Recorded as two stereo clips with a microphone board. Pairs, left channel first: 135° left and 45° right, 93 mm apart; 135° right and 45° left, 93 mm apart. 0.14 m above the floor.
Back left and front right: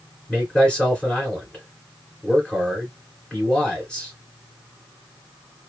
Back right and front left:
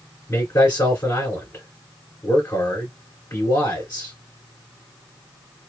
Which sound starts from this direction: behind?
A man speaking, at 0.3 s.